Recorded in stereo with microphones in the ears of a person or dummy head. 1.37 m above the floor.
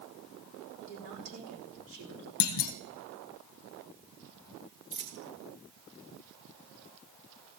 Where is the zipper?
I don't hear a zipper.